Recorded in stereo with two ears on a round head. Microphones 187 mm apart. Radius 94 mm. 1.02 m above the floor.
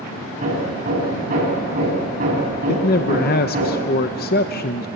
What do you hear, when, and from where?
0.4 s hammering: 40° right (ahead or behind), 6.5 m
2.7 s a man speaking: 45° left (ahead or behind), 0.8 m